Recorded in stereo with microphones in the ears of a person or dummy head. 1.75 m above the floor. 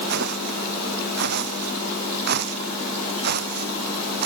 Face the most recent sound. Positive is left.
turn(degrees=-50)  # may be behind; listen again after turning